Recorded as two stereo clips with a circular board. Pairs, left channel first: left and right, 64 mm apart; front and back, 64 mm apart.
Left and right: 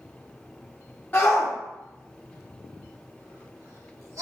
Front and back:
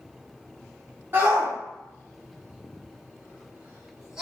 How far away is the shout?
About 1.9 m.